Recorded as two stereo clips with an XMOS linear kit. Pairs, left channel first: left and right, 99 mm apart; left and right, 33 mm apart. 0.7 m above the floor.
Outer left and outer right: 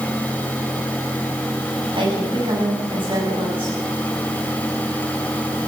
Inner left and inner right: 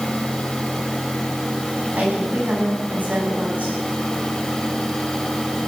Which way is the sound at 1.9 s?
65° right (ahead or behind).